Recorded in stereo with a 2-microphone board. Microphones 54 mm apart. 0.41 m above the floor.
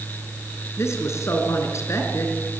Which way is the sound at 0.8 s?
60° left (ahead or behind).